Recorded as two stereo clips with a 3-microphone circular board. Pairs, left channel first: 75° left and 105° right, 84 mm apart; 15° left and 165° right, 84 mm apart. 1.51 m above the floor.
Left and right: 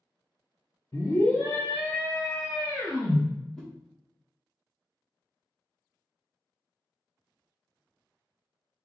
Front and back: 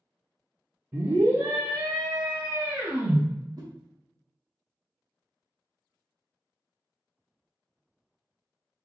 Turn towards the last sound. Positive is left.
turn(degrees=155)